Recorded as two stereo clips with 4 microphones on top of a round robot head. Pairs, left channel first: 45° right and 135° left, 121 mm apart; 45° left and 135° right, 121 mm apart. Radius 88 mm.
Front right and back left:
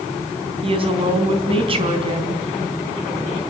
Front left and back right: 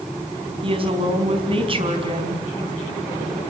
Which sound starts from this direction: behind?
A woman speaking, at 0.6 s.